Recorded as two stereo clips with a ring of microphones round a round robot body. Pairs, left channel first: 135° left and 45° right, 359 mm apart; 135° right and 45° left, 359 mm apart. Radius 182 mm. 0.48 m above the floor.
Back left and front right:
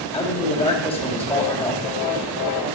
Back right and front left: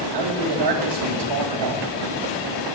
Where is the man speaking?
50° left, 2 m.